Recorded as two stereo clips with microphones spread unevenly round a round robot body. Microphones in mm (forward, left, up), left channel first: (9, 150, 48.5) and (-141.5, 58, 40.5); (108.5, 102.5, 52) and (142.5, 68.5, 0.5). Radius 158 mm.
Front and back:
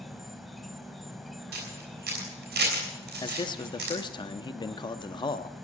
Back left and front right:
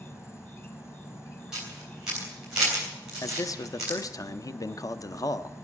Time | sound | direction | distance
0.0 | an insect | 120° left | 1.0 m
1.5 | a camera shutter | 105° right | 3 m
3.2 | a man speaking | 50° left | 0.8 m